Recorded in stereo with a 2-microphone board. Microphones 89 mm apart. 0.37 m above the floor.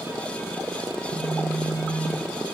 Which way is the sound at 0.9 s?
60° right (ahead or behind).